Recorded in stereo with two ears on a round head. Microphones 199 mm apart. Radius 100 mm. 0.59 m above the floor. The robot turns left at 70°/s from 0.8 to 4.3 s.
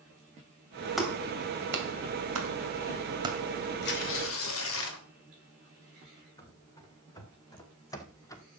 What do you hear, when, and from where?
1.0 s a clap: centre (ahead or behind), 2.5 m; by 3.4 s 10° right (ahead or behind), 2.5 m
3.8 s tearing paper: 125° left, 2.5 m; by 5.0 s 90° left, 2.5 m
6.4 s running footsteps: 15° left (ahead or behind), 3 m